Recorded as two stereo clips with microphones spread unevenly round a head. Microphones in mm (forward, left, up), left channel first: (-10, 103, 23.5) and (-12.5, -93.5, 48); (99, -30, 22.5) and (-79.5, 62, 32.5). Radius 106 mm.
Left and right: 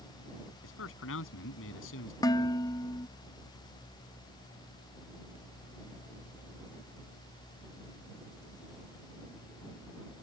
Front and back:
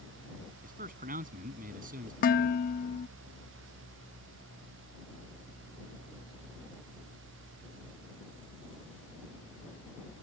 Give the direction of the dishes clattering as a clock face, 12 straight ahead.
12 o'clock.